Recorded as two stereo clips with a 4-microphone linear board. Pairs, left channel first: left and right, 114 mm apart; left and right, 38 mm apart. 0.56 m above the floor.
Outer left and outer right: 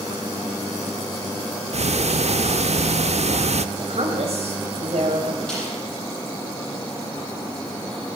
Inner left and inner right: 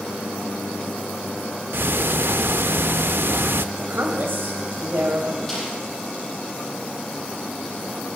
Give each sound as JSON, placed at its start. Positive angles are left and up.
{"t": 1.7, "sound": "ticking", "side_deg": -75, "distance_m": 0.5}
{"t": 3.8, "sound": "a woman speaking", "side_deg": -70, "distance_m": 3.5}
{"t": 5.5, "sound": "a snare drum", "side_deg": 5, "distance_m": 8.5}